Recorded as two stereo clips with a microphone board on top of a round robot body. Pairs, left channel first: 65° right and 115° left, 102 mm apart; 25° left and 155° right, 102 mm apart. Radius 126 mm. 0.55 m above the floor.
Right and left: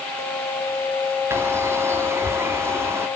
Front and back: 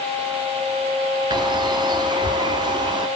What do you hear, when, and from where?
1.3 s a bird: 170° left, 1.8 m